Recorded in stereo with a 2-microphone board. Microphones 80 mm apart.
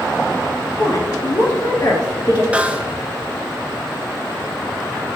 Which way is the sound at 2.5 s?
15° right (ahead or behind).